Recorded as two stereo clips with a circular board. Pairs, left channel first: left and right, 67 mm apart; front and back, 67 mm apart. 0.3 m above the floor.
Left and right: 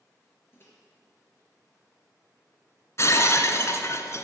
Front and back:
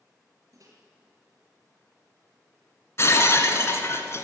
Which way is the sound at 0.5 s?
145° left.